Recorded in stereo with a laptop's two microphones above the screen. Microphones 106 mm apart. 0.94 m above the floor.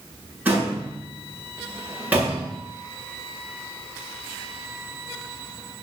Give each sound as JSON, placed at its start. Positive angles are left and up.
{"t": 0.5, "sound": "a door slam", "side_deg": -15, "distance_m": 9.0}